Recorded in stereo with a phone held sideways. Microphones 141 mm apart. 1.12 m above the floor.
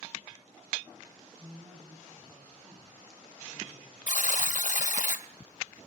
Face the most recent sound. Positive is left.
turn(degrees=65)  # may be behind; listen again after turning